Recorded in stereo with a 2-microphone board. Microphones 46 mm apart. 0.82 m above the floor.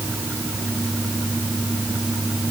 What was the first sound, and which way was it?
Only background noise.